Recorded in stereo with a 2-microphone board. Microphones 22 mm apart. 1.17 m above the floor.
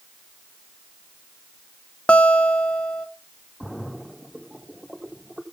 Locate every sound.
2.1 s a guitar: 70° left (ahead or behind), 0.8 m
3.6 s a splash: centre (ahead or behind), 1.9 m